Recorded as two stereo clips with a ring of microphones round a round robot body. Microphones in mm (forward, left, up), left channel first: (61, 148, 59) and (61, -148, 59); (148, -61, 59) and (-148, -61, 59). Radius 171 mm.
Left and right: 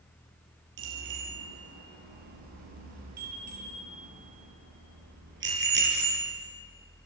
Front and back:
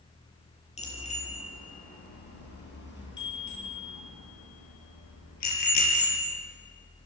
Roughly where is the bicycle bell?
Right.